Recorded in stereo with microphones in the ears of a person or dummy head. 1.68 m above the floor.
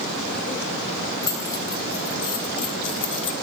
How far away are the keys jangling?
About 4 m.